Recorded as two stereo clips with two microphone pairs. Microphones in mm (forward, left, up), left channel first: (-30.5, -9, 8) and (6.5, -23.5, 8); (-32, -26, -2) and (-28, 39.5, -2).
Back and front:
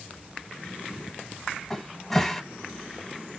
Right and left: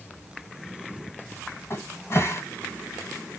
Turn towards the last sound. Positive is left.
turn(degrees=-115)